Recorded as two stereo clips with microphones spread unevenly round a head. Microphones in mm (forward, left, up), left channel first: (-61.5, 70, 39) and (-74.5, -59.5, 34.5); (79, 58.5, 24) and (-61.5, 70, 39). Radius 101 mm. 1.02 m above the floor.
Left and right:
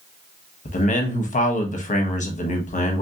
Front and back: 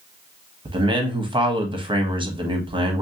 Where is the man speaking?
115° left, 1.0 m.